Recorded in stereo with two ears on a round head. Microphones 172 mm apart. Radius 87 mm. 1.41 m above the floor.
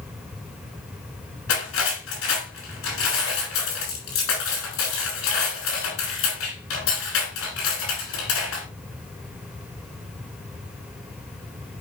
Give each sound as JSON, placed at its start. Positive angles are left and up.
{"t": 1.5, "sound": "cutlery clinking", "side_deg": 85, "distance_m": 6.0}